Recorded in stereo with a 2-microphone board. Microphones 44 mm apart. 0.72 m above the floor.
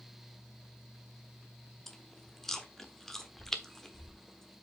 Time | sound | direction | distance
1.9 | chewing | 10° left (ahead or behind) | 1.0 m